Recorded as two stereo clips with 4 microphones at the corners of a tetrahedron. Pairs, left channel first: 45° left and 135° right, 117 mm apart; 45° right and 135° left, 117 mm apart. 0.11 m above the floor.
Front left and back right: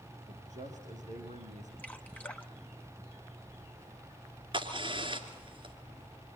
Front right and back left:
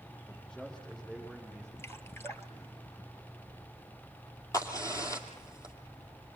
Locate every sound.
0.3 s a man speaking: 130° right, 10 m
1.8 s dripping: 15° right, 1.3 m
4.5 s a crack: 100° right, 2.5 m